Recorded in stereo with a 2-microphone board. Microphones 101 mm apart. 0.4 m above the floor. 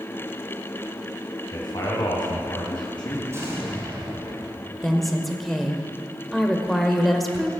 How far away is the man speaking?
About 3 m.